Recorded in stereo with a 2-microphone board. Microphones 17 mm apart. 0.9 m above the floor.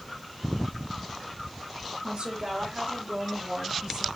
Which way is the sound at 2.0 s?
70° right (ahead or behind).